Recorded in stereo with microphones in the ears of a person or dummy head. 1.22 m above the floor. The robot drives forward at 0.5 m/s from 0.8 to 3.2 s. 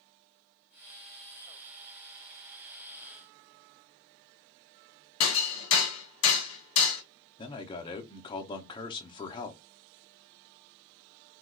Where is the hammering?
70° left (ahead or behind), 1.6 m.